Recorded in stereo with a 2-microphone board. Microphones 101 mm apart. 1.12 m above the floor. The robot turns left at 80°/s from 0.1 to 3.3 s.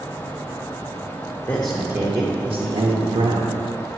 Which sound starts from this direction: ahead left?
A man speaking, at 1.5 s.